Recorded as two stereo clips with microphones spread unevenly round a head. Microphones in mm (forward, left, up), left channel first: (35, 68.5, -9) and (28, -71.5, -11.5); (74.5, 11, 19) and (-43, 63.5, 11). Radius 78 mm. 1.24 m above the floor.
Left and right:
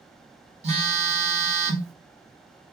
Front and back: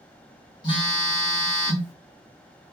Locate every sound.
0.6 s a phone buzzing: 75° right, 0.9 m